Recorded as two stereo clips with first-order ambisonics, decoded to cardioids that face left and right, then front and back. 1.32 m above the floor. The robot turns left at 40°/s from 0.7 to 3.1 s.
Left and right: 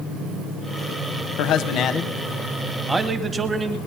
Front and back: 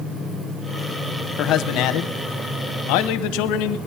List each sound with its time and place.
1.4 s a man speaking: 50° left, 0.8 m; by 3.8 s 15° right, 0.8 m